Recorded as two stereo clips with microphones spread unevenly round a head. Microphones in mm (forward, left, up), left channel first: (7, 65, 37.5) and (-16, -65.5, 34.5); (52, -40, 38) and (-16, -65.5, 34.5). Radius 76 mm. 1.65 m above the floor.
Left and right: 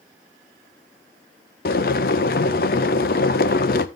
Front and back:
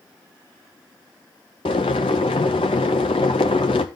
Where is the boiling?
60° left, 0.8 m.